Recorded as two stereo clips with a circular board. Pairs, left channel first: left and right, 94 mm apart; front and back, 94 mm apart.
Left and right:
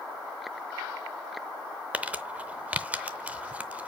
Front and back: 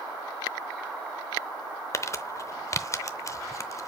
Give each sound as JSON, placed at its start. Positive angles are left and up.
{"t": 1.9, "sound": "crumpling", "azimuth_deg": -25, "distance_m": 0.6}